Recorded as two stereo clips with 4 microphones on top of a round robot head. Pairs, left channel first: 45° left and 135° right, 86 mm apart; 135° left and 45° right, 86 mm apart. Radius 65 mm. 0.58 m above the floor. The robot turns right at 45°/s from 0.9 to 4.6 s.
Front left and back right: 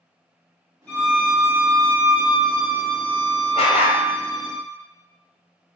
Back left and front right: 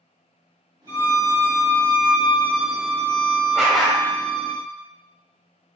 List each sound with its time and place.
0.9 s a violin: 120° left, 1.7 m; by 4.5 s 75° right, 1.7 m
3.5 s a dog barking: 40° left, 0.6 m; by 4.0 s 60° left, 0.6 m